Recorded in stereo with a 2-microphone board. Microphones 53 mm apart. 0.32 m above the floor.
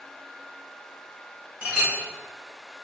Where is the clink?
25° right (ahead or behind), 1.0 m.